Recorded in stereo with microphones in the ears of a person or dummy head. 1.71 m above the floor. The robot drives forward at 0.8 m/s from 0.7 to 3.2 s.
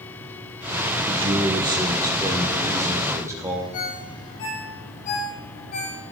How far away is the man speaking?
About 1.4 m.